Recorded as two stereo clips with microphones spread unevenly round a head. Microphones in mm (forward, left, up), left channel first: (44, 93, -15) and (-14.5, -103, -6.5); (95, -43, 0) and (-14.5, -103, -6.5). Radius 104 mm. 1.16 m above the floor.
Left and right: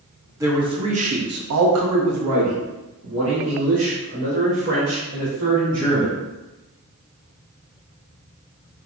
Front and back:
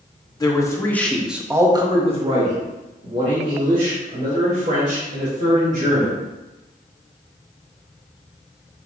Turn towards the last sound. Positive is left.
turn(degrees=-155)